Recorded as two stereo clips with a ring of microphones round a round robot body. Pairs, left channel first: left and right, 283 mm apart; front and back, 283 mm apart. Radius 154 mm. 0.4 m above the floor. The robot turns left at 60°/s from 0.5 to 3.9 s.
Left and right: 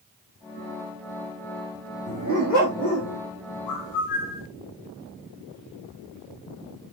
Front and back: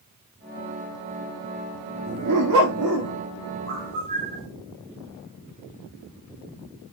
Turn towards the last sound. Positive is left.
turn(degrees=110)